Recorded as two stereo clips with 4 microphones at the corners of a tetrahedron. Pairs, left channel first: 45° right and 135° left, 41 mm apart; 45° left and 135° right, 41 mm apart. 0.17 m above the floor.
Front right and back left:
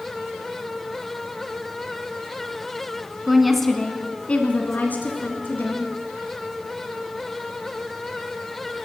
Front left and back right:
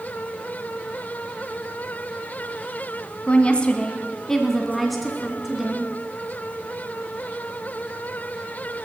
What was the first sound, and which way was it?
A woman speaking, 60° left.